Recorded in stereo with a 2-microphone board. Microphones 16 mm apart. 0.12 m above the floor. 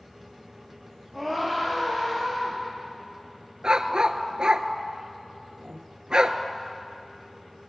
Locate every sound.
1.1 s a scream: 25° left (ahead or behind), 5.5 m; by 2.6 s 35° left (ahead or behind), 4 m
3.6 s a dog barking: 55° right (ahead or behind), 0.6 m